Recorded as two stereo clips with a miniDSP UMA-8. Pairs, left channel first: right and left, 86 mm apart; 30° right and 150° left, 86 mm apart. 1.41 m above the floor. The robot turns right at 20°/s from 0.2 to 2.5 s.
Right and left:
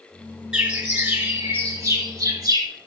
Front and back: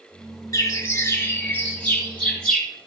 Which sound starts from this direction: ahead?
A bird, at 0.5 s.